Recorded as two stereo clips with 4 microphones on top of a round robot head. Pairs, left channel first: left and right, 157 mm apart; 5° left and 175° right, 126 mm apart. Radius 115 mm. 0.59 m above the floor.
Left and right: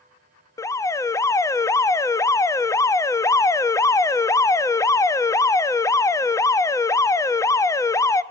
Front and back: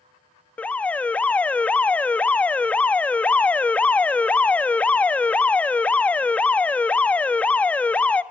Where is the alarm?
65° left, 0.9 m.